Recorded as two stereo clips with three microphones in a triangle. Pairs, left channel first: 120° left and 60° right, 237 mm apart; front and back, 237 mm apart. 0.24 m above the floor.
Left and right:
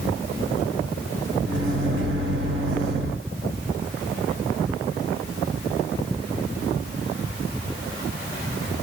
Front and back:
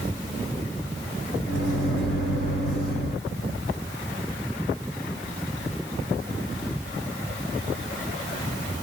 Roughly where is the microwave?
Ahead right.